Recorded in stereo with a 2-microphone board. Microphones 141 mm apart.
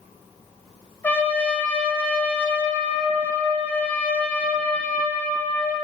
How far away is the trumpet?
About 1.1 m.